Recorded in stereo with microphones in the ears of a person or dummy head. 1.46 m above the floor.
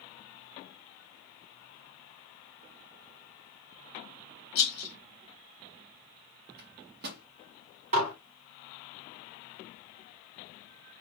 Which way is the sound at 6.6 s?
50° right (ahead or behind).